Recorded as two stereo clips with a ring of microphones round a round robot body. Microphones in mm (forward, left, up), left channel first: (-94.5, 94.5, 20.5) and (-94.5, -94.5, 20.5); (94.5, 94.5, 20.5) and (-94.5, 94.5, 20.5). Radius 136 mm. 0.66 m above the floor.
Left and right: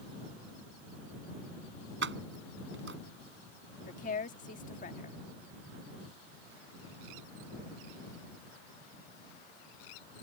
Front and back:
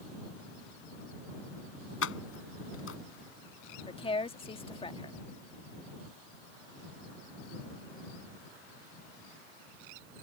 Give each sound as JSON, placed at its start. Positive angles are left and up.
{"t": 2.0, "sound": "keys jangling", "azimuth_deg": -40}
{"t": 3.9, "sound": "a woman speaking", "azimuth_deg": 55}